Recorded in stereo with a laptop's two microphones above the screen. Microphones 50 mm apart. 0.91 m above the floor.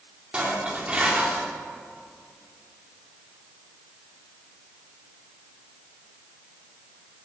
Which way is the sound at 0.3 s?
20° right (ahead or behind).